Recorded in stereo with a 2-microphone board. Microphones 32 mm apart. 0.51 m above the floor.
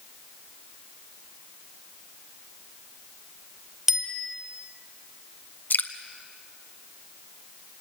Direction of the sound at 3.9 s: 15° right (ahead or behind).